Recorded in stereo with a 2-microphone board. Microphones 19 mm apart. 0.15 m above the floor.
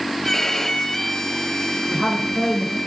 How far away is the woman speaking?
About 6 m.